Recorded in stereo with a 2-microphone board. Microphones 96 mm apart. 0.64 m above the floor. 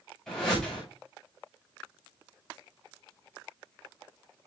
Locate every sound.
0.3 s a whoosh: 5° left (ahead or behind), 5 m